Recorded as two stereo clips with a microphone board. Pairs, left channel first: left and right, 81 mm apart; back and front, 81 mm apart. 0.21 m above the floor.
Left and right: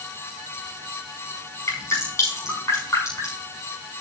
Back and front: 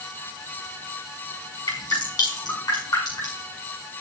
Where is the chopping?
I don't hear chopping.